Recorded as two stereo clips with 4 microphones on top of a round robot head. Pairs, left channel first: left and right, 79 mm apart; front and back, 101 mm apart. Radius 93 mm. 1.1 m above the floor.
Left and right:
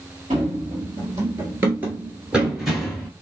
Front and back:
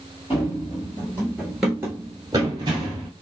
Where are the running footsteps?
55° right, 1.4 m; by 3.1 s 175° left, 1.3 m.